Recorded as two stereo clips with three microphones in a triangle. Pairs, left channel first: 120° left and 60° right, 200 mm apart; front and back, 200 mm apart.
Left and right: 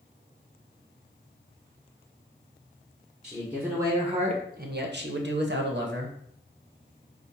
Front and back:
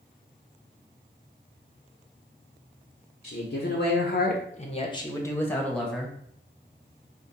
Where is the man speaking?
30° left, 0.9 m; by 6.1 s 90° right, 1.2 m.